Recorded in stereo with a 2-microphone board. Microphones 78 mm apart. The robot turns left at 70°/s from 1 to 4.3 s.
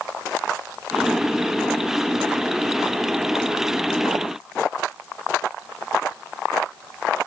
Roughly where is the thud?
I don't hear a thud.